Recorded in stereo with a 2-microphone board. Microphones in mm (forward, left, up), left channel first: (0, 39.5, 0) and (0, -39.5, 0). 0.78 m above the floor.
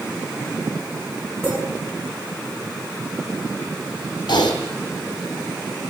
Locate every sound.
1.4 s a clink: 25° right (ahead or behind), 6.5 m
4.3 s typing on a keyboard: 75° left (ahead or behind), 2.5 m